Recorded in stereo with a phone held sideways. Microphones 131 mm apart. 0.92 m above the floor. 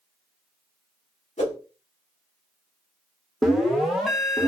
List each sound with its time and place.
1.4 s a whoosh: 60° left (ahead or behind), 1.5 m
3.4 s an alarm: centre (ahead or behind), 0.6 m